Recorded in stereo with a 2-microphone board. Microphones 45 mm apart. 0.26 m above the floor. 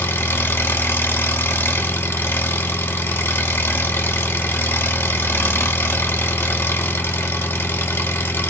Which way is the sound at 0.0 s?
65° left (ahead or behind).